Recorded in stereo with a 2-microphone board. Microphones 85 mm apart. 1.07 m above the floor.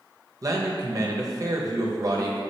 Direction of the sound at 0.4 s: 40° right (ahead or behind).